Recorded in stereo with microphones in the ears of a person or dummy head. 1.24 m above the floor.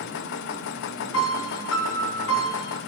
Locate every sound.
0.0 s a machine running: 60° left (ahead or behind), 0.7 m
1.1 s a piano: 85° left, 1.9 m